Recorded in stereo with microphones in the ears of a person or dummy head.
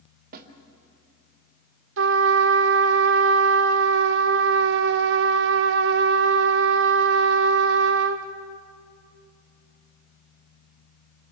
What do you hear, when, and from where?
0.3 s a snare drum: 50° right (ahead or behind), 2.0 m
2.0 s a trumpet: 60° right (ahead or behind), 1.1 m